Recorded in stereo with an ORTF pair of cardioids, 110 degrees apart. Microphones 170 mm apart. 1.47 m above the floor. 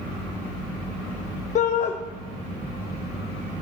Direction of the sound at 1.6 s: 45° left.